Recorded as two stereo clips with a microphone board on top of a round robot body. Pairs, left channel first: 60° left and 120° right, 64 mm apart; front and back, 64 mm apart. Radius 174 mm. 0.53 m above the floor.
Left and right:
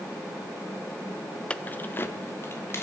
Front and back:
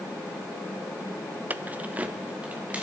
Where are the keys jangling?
130° left, 0.6 m; by 2.8 s 110° left, 2 m.